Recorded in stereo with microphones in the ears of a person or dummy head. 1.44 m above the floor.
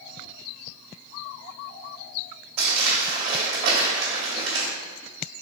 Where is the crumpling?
40° right (ahead or behind), 1.8 m.